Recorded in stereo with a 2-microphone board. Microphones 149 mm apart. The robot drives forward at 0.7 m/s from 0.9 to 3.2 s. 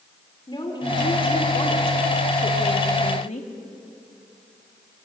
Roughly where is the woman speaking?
Left.